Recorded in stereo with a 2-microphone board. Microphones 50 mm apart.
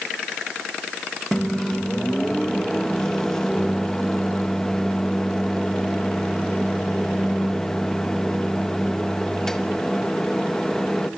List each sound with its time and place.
1.3 s a microwave: 10° left (ahead or behind), 1.0 m